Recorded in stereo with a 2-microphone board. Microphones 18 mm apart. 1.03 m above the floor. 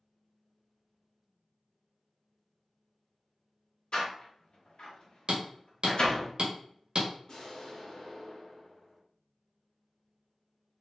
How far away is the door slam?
About 0.9 m.